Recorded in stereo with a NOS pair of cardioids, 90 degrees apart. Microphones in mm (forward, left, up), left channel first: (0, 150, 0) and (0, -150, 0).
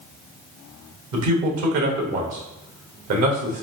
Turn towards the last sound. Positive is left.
turn(degrees=-65)